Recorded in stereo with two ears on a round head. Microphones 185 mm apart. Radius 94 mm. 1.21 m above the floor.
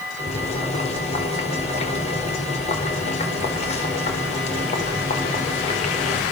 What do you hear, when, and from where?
0.2 s boiling: 35° left (ahead or behind), 4.5 m